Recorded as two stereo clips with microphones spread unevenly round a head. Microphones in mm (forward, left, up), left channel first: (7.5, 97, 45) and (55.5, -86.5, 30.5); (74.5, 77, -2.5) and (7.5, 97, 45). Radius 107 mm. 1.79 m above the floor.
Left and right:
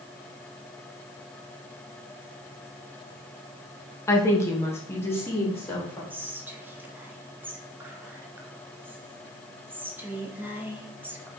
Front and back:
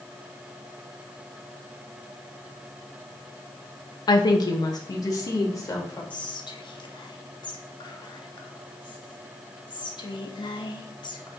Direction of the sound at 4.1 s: 35° left.